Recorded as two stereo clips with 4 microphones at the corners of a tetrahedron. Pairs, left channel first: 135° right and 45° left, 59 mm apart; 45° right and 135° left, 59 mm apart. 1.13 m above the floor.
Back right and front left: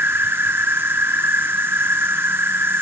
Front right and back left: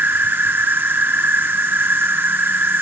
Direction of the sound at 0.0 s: 90° left.